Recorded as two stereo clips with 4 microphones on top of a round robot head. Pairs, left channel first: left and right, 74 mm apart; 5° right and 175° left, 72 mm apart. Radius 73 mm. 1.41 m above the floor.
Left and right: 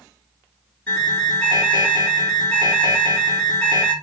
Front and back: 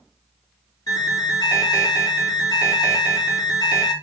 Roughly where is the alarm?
Ahead.